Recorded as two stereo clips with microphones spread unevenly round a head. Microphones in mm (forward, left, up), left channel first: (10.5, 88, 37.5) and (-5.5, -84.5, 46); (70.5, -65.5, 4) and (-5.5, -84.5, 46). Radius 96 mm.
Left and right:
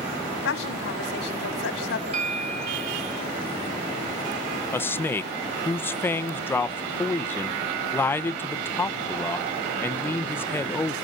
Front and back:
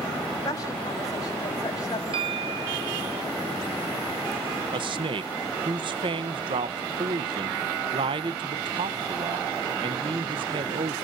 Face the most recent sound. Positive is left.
turn(degrees=155)